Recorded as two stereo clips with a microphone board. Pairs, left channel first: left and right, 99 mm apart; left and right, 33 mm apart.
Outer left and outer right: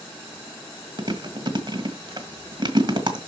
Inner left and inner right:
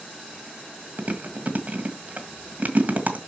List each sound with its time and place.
1.0 s chewing: 45° right (ahead or behind), 1.8 m